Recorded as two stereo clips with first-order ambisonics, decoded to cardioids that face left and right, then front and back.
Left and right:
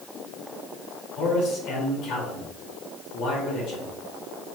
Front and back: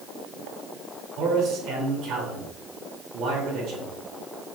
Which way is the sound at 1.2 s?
135° left.